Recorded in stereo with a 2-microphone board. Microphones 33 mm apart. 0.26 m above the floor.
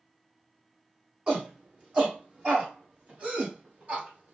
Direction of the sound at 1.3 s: 30° right (ahead or behind).